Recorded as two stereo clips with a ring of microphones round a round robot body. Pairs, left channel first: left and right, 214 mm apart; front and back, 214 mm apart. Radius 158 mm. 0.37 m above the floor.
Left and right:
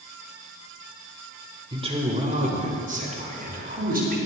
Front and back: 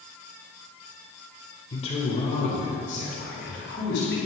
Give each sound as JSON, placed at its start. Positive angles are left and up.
{"t": 1.7, "sound": "a man speaking", "azimuth_deg": -40, "distance_m": 1.4}